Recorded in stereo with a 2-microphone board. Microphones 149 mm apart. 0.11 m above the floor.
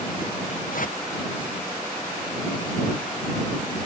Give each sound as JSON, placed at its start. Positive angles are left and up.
{"t": 0.7, "sound": "a whoosh", "side_deg": 65}